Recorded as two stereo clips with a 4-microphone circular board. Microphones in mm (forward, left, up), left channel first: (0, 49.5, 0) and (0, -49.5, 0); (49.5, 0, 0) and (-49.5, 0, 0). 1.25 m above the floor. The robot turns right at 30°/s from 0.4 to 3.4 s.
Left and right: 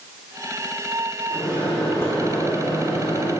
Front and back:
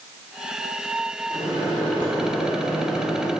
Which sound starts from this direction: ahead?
A microwave, at 1.3 s.